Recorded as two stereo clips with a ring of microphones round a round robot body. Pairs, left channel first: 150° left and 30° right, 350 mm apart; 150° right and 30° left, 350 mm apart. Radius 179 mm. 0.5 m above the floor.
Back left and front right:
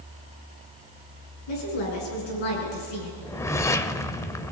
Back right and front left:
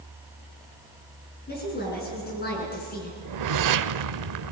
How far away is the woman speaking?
About 8 m.